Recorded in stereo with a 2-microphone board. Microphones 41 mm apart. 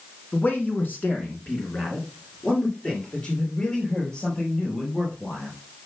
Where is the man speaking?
45° left (ahead or behind), 2 m; by 5.5 s 30° left (ahead or behind), 5.5 m.